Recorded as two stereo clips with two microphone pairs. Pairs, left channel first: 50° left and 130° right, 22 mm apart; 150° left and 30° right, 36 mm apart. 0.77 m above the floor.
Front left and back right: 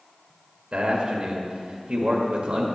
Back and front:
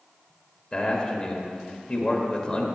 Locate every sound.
0.7 s a man speaking: 145° right, 1.4 m